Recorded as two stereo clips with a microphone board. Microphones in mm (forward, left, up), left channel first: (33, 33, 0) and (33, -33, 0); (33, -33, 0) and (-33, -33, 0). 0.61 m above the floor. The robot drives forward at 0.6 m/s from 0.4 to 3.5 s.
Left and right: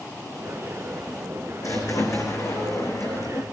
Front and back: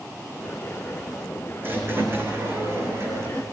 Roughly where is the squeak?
Behind left.